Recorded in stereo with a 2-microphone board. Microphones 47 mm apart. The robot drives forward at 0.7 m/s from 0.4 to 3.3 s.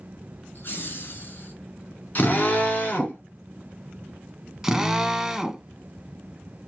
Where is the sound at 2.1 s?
40° left (ahead or behind), 2.0 m; by 3.2 s 35° left (ahead or behind), 2.5 m.